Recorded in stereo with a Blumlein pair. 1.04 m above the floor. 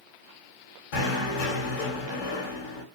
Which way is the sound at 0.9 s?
50° left.